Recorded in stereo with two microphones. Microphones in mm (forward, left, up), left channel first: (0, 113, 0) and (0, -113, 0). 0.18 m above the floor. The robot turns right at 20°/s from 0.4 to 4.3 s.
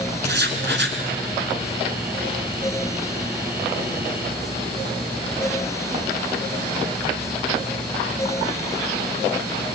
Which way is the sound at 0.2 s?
50° right (ahead or behind).